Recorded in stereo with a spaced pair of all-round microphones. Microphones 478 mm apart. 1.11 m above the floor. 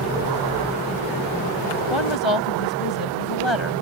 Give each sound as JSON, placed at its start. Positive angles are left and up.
{"t": 1.9, "sound": "a woman speaking", "side_deg": 70}